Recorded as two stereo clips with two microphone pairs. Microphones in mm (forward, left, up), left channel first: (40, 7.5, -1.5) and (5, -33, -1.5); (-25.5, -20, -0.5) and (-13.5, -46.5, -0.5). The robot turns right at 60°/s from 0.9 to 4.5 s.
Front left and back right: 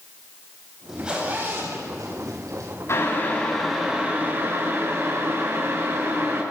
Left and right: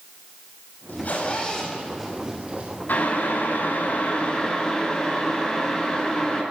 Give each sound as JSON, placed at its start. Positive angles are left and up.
{"t": 0.9, "sound": "a zipper", "azimuth_deg": 145, "distance_m": 6.5}
{"t": 2.9, "sound": "boiling", "azimuth_deg": 90, "distance_m": 6.5}